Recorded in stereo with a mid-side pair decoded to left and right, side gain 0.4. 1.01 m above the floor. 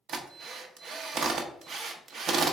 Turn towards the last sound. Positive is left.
turn(degrees=-70)